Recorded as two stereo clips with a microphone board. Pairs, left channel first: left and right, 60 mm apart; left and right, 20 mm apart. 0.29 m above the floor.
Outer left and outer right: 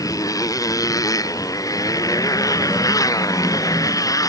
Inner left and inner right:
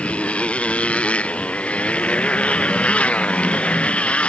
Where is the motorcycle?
85° left.